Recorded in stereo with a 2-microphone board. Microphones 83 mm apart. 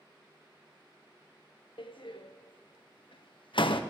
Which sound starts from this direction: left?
A door slam, at 1.8 s.